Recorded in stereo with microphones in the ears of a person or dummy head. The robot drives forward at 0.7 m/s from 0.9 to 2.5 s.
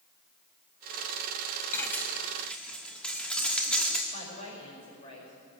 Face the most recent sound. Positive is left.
turn(degrees=40)  # may be behind; listen again after turning